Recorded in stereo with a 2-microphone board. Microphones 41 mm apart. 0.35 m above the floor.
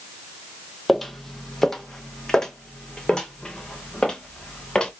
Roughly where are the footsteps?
Centre.